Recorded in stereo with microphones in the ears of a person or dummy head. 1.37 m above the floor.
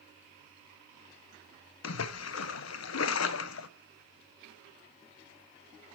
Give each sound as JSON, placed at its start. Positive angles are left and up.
{"t": 1.8, "sound": "a splash", "side_deg": 85, "distance_m": 0.5}